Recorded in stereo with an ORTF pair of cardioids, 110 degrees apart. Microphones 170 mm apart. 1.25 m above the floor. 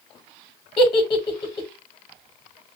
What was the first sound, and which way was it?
A giggle, 25° left.